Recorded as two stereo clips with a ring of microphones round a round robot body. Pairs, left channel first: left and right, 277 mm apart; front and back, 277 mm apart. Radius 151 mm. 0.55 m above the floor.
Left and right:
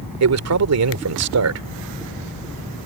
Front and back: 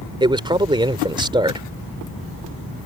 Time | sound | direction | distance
0.2 | a man speaking | 110° right | ?